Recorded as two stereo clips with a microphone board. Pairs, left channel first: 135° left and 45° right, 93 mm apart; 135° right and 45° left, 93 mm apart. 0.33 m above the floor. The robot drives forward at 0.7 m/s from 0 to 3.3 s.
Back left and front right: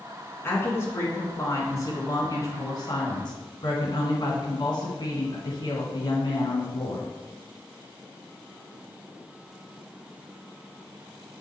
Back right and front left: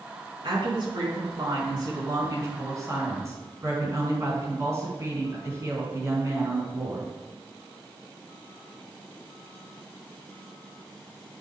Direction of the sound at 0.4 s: 70° left.